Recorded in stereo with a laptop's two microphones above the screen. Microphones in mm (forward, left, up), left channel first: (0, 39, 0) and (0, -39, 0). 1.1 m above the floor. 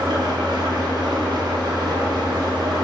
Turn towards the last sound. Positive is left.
turn(degrees=-60)  # may be behind; listen again after turning